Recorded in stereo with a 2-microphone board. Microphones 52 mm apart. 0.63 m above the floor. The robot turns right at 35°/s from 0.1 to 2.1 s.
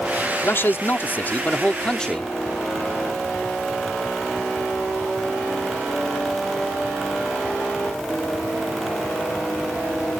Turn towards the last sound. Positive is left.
turn(degrees=160)